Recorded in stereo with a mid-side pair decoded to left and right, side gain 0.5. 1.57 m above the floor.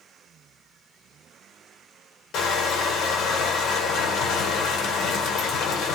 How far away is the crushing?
About 1.1 m.